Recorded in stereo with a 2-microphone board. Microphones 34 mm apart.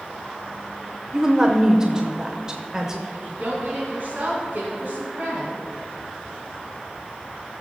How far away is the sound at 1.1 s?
About 0.8 m.